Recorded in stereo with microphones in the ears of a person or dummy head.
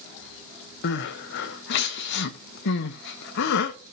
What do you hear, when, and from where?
0.8 s crying: 65° left (ahead or behind), 1.1 m